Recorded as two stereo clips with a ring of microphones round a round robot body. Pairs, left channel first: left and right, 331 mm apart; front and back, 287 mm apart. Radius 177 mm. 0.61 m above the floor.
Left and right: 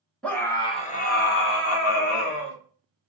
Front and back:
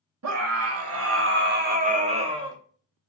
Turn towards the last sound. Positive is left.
turn(degrees=105)